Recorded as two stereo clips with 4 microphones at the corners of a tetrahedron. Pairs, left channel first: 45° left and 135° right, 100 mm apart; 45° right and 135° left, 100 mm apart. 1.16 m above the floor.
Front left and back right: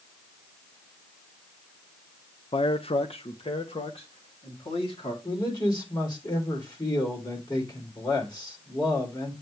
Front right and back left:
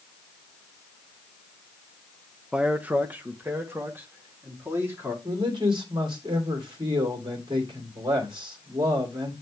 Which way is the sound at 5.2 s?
95° left.